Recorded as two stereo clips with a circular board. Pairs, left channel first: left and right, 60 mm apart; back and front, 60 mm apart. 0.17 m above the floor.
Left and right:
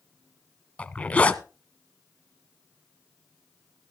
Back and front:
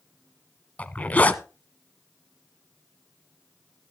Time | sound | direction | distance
0.8 | a zipper | 140° left | 0.9 m